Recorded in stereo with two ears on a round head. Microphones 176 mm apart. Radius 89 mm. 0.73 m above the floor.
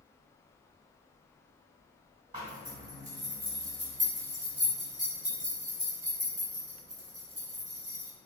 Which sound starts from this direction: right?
A zipper, at 2.3 s.